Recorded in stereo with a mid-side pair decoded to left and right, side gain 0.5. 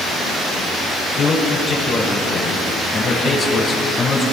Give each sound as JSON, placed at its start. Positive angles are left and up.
{"t": 1.2, "sound": "a man speaking", "azimuth_deg": 50, "distance_m": 7.0}